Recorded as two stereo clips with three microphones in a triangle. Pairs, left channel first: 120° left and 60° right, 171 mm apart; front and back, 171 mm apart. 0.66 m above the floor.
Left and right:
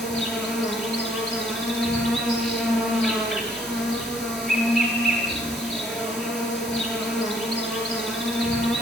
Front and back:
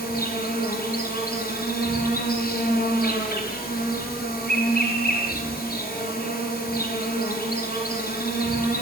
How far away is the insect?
About 10 m.